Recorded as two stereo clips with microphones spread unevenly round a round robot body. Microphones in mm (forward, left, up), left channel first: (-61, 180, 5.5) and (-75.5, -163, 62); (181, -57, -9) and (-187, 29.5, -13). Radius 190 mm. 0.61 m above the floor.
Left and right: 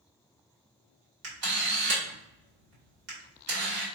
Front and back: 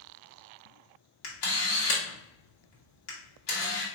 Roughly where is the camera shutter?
Ahead right.